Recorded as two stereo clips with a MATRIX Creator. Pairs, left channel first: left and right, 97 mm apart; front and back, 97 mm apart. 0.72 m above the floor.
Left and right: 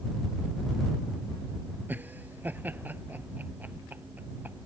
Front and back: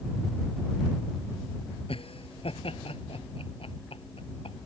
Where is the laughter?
20° right.